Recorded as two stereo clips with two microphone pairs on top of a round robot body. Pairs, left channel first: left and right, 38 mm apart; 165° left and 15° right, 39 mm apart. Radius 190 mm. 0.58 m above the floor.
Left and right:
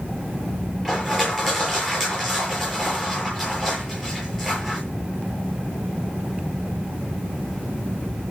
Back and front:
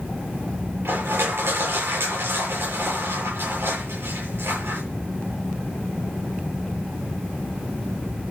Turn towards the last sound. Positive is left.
turn(degrees=5)